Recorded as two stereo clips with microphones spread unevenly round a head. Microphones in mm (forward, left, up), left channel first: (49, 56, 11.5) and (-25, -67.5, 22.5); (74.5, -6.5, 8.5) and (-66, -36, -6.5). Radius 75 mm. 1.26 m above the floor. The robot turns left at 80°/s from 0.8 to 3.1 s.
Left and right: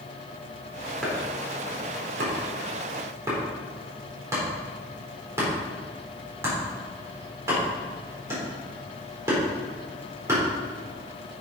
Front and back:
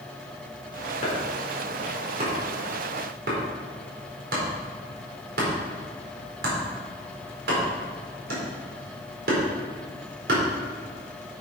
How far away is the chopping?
About 4 m.